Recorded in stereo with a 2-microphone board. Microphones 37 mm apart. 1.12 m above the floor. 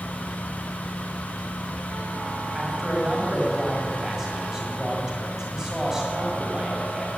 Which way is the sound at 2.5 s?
15° right (ahead or behind).